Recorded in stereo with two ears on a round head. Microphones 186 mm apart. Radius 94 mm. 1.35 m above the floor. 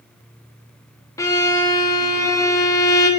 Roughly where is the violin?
Centre.